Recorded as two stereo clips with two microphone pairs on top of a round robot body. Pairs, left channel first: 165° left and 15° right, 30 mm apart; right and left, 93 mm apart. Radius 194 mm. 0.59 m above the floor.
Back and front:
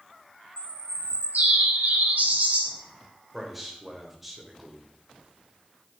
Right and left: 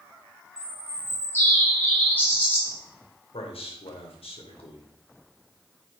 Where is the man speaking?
95° right, 3 m.